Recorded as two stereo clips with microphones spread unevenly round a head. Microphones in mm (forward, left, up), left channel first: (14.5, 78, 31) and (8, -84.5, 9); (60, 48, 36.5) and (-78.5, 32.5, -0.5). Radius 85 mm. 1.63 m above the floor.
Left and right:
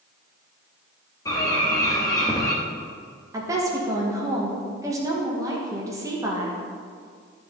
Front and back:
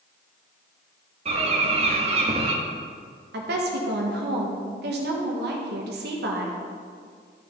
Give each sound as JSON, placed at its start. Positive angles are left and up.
{"t": 1.2, "sound": "a bird", "azimuth_deg": 140, "distance_m": 1.3}
{"t": 3.3, "sound": "a woman speaking", "azimuth_deg": -165, "distance_m": 1.9}